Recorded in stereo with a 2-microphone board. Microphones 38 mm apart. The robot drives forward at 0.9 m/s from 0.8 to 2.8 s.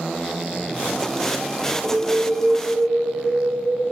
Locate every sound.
1.8 s an alarm: 20° right (ahead or behind), 1.4 m; by 3.8 s 45° right (ahead or behind), 0.7 m